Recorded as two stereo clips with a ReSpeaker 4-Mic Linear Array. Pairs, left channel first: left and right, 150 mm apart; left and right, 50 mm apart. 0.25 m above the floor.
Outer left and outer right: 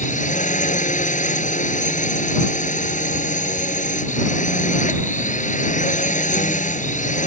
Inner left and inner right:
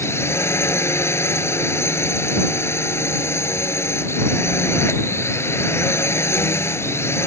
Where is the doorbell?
No doorbell in this recording.